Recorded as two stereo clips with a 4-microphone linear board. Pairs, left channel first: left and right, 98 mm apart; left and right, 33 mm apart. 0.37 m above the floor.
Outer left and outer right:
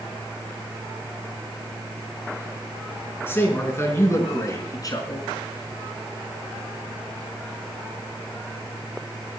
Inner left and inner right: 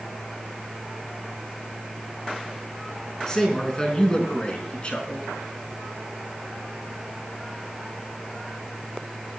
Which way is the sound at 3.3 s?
20° left (ahead or behind).